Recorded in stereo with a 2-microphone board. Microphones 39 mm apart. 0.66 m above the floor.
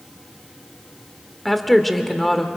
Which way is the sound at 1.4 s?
5° left (ahead or behind).